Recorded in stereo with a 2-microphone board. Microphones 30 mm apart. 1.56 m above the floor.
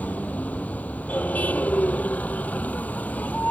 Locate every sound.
0.0 s a vehicle: 55° left (ahead or behind)